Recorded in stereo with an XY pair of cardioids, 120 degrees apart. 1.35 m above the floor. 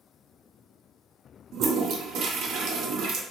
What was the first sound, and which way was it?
A toilet flushing, 65° right.